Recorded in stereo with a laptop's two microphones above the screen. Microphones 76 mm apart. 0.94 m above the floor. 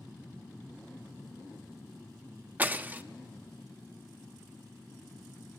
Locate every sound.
2.6 s breaking glass: 25° right (ahead or behind), 0.6 m